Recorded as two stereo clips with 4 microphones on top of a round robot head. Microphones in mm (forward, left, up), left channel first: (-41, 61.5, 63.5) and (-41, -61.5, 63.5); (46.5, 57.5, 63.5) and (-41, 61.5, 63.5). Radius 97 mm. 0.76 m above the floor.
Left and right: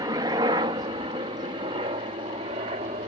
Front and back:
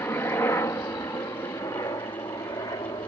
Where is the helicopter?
55° right.